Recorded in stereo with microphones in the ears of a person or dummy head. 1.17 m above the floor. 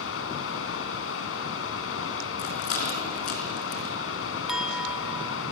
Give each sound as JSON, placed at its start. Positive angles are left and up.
{"t": 0.0, "sound": "running water", "side_deg": 75, "distance_m": 4.0}
{"t": 2.4, "sound": "a rattle", "side_deg": 50, "distance_m": 5.0}
{"t": 4.5, "sound": "a clink", "side_deg": 0, "distance_m": 1.3}